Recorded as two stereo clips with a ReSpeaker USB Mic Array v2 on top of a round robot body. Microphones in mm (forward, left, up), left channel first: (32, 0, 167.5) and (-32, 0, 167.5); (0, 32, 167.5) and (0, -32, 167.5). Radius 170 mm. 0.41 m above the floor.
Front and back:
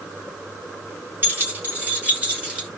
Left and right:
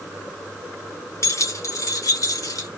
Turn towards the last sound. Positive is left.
turn(degrees=105)